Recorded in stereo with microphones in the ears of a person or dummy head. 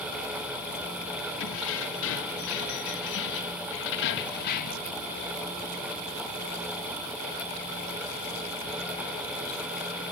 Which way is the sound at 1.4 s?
75° left (ahead or behind).